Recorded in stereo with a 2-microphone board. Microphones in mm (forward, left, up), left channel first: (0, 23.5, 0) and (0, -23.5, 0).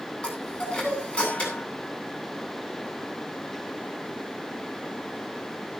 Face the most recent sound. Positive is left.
turn(degrees=25)  # may be behind; listen again after turning